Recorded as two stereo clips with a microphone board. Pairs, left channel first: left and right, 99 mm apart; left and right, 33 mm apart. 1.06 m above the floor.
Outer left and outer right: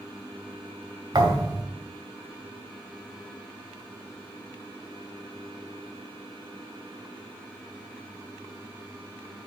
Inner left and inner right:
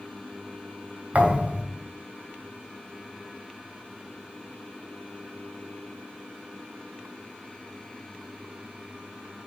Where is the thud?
45° right (ahead or behind), 2.5 m.